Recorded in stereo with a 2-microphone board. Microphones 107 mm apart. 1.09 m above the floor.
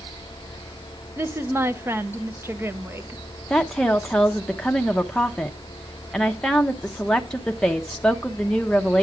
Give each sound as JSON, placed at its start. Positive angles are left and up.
{"t": 1.2, "sound": "a woman speaking", "side_deg": -20, "distance_m": 0.7}
{"t": 3.5, "sound": "a woman speaking", "side_deg": 5, "distance_m": 0.7}